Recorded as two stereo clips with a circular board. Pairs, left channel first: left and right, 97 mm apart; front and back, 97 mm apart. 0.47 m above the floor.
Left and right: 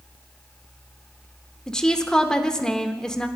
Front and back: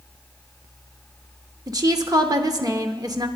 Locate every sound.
1.7 s a woman speaking: 170° left, 0.9 m